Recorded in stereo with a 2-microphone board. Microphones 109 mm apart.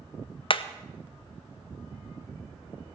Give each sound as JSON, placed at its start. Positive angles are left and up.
{"t": 0.5, "sound": "hammering", "side_deg": 55, "distance_m": 0.7}